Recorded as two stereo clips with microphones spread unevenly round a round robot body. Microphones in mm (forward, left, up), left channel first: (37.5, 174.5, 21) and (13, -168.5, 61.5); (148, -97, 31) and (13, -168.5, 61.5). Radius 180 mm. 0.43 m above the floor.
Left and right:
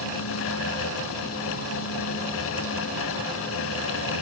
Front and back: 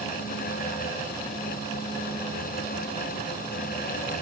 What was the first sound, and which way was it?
Only background noise.